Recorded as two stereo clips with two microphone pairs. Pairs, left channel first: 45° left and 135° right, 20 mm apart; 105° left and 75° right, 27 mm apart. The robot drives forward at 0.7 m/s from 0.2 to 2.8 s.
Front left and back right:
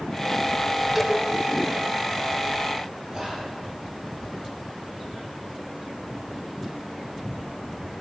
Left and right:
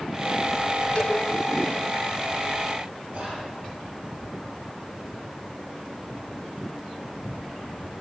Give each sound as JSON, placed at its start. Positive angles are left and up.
{"t": 0.9, "sound": "a cowbell", "azimuth_deg": 155, "distance_m": 2.0}
{"t": 3.1, "sound": "whispering", "azimuth_deg": -80, "distance_m": 6.0}